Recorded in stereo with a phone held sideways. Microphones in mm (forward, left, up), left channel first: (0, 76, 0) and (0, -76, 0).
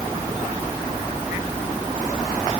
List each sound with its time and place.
Only background noise.